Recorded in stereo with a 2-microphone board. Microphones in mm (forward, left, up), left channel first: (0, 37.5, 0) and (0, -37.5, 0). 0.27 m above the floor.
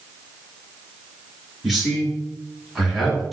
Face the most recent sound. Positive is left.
turn(degrees=-5)  # may be behind; listen again after turning